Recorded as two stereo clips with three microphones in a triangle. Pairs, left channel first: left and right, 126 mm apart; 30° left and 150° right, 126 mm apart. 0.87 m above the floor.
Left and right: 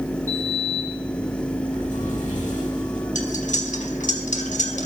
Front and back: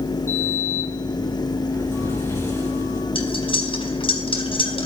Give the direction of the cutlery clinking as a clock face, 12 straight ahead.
9 o'clock.